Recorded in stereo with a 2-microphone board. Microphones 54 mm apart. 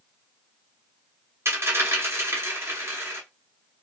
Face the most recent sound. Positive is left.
turn(degrees=-50)  # may be behind; listen again after turning